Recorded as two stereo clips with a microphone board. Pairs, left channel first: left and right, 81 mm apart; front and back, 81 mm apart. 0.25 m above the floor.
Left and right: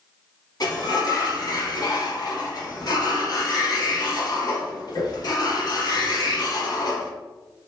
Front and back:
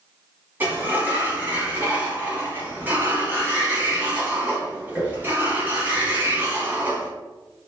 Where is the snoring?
No snoring in this recording.